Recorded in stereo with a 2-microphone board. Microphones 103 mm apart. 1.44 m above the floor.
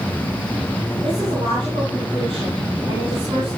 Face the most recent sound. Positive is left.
turn(degrees=-55)  # may be behind; listen again after turning